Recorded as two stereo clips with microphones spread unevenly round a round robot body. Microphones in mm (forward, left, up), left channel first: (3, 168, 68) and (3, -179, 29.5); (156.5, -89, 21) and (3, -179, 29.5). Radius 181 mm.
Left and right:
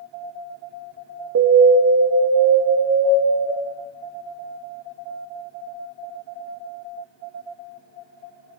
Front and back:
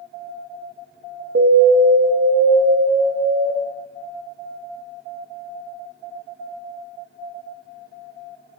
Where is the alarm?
140° right, 1.4 m.